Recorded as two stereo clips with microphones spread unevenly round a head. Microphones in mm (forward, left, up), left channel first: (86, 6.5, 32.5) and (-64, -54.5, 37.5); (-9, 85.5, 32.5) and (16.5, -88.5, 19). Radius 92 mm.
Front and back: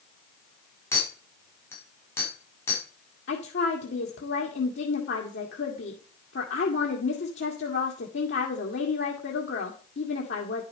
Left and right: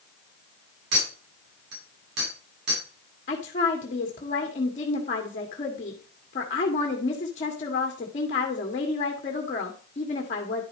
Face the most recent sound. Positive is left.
turn(degrees=45)